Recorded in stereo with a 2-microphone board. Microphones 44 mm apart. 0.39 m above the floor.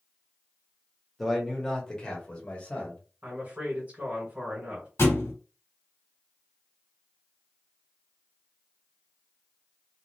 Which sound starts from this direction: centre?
A man speaking, at 1.2 s.